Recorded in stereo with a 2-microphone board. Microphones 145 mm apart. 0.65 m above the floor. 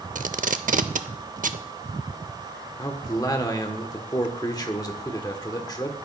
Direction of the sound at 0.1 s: 65° right (ahead or behind).